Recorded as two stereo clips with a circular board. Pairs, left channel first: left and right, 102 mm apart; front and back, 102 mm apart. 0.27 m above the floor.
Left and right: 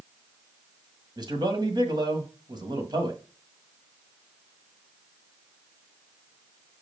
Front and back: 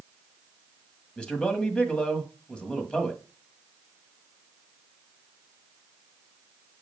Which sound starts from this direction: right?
A man speaking, at 1.2 s.